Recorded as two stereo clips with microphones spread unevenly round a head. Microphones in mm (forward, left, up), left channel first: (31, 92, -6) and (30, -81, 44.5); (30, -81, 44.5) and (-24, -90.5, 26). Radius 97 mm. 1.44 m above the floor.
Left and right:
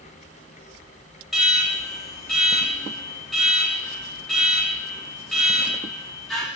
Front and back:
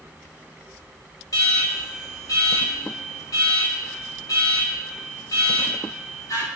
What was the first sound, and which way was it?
An alarm, straight ahead.